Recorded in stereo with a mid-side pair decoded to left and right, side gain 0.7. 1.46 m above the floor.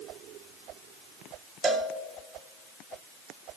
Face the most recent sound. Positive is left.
turn(degrees=-25)